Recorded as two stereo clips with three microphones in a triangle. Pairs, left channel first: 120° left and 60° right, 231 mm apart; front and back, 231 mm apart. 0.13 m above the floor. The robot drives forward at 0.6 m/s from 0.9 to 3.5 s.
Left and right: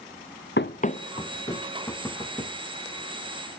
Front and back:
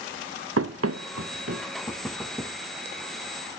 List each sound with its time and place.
0.6 s running footsteps: 160° left, 0.6 m; by 1.7 s 165° right, 1.7 m
1.9 s knocking: 50° left, 0.9 m; by 2.6 s 130° left, 0.9 m